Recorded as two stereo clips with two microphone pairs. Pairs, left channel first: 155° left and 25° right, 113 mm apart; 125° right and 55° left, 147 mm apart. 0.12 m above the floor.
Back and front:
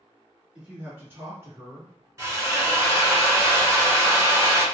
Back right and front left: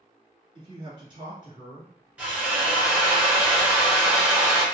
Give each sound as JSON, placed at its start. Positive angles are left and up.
{"t": 0.6, "sound": "a man speaking", "azimuth_deg": 50, "distance_m": 1.9}
{"t": 2.2, "sound": "a drill", "azimuth_deg": -15, "distance_m": 1.4}